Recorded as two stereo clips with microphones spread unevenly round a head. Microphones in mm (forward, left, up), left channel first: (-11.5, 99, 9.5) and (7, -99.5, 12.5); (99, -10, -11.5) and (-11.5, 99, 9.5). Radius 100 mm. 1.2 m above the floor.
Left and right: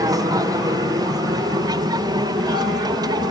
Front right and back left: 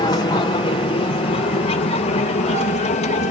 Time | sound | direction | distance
0.0 | an aircraft | 30° right | ?